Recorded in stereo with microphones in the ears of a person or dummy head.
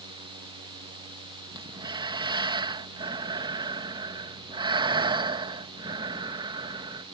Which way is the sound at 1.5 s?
25° right (ahead or behind).